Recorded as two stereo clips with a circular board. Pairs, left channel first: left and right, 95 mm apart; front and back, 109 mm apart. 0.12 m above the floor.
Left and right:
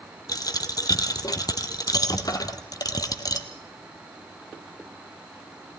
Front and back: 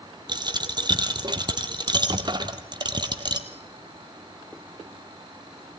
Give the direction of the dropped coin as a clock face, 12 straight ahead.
7 o'clock.